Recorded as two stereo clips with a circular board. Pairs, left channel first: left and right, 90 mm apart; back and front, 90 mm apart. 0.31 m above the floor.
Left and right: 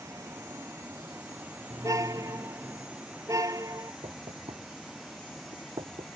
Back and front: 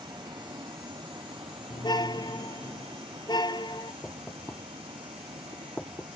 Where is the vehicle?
35° right; by 6.2 s 5° left.